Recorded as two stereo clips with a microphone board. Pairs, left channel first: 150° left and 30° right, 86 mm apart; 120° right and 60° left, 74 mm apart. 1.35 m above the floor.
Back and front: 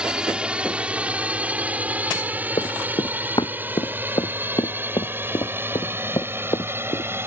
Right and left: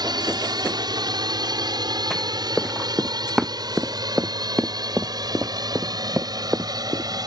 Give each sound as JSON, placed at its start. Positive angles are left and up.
{"t": 0.0, "sound": "a drone", "azimuth_deg": 50}
{"t": 2.6, "sound": "running footsteps", "azimuth_deg": 150}